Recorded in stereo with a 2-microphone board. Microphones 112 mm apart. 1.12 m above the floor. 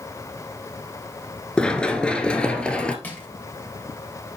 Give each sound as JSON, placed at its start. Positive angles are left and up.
{"t": 1.6, "sound": "running footsteps", "side_deg": 10, "distance_m": 1.1}
{"t": 3.0, "sound": "crushing", "side_deg": 15, "distance_m": 3.0}